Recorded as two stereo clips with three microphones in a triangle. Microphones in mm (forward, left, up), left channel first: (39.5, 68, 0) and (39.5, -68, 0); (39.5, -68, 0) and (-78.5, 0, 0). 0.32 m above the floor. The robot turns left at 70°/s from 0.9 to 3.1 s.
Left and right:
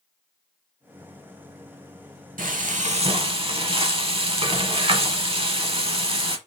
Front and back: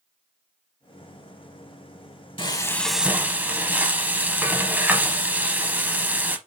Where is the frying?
85° right, 0.7 m; by 6.4 s 135° right, 0.7 m.